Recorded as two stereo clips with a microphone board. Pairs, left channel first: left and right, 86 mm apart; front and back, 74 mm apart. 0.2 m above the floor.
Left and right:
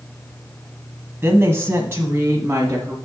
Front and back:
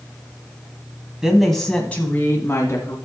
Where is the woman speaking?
105° right, 1.1 m; by 3.0 s 35° right, 1.6 m.